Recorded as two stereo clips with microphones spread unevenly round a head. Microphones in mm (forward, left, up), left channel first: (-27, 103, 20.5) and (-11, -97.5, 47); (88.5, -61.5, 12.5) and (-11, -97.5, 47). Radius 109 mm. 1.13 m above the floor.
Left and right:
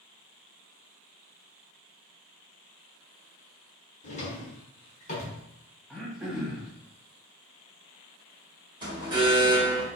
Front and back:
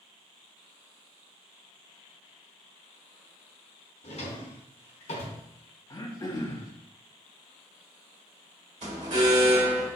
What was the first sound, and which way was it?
A drawer, 45° left.